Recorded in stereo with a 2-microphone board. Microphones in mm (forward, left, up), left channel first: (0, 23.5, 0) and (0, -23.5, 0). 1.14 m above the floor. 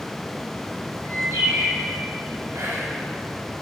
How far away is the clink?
I don't hear a clink.